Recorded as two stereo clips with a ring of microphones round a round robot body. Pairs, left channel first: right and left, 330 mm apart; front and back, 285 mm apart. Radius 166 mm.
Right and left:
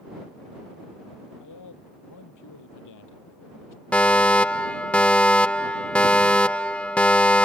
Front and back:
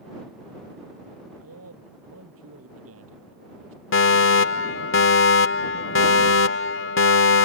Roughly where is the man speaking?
Behind right.